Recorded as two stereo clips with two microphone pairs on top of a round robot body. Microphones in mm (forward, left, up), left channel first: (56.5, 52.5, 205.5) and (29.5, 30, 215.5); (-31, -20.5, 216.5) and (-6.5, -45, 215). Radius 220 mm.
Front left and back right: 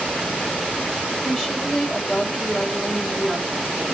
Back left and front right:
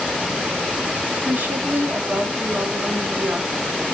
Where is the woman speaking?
45° right, 2 m.